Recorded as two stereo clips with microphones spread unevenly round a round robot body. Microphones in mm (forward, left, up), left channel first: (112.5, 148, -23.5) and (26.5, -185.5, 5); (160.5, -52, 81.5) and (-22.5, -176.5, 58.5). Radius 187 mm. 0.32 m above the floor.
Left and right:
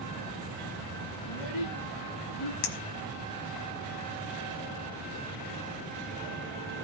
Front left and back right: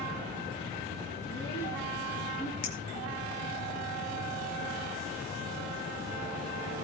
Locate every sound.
1.2 s a child speaking: 110° left, 3.5 m; by 2.5 s 125° left, 3.5 m
2.6 s a clink: 95° left, 1.1 m